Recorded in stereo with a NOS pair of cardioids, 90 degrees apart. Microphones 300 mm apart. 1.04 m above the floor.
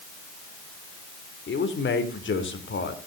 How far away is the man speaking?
About 3.5 m.